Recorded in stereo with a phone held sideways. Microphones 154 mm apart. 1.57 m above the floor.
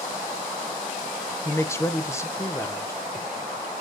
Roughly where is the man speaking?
Centre.